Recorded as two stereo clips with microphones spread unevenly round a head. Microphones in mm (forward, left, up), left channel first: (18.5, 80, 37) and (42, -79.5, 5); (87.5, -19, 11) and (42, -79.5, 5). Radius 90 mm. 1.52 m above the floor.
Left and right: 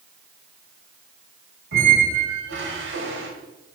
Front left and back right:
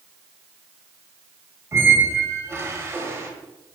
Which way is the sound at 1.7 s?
70° right.